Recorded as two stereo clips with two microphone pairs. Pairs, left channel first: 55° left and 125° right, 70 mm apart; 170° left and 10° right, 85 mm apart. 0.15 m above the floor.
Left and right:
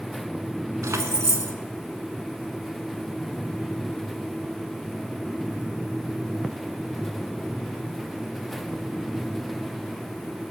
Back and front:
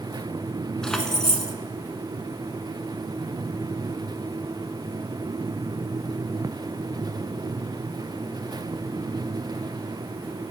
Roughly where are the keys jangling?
Right.